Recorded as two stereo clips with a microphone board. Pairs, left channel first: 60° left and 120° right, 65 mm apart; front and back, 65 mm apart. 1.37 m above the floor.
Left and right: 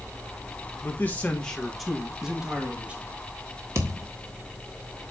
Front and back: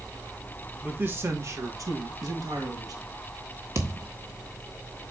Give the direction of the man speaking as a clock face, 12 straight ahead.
8 o'clock.